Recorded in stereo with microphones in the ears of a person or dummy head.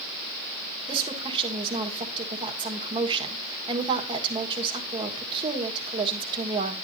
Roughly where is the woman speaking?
Right.